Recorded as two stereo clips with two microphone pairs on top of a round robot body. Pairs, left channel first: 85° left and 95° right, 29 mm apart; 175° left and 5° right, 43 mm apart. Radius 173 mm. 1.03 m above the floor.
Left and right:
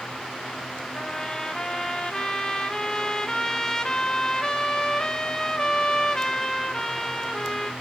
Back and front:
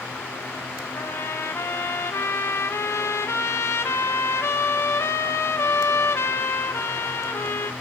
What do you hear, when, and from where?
0.9 s a trumpet: 150° left, 0.8 m